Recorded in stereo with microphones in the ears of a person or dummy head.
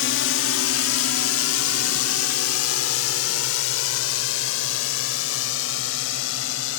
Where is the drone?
65° left (ahead or behind); by 6.8 s 70° left (ahead or behind).